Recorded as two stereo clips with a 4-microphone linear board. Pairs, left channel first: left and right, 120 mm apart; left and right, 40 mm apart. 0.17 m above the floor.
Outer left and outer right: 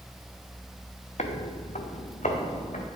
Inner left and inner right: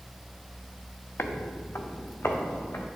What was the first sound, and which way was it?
Footsteps, 65° left (ahead or behind).